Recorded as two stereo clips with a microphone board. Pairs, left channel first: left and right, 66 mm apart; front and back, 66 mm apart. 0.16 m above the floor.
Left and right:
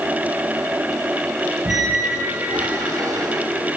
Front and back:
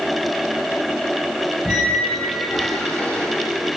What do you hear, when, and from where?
1.6 s a squeak: 65° right, 2.5 m